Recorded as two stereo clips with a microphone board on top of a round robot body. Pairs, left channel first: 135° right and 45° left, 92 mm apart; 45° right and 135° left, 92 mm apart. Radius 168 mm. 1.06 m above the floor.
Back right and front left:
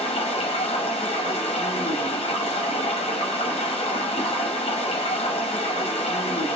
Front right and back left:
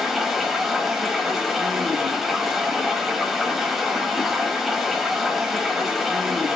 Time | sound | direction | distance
0.0 | running water | 135° right | 0.9 m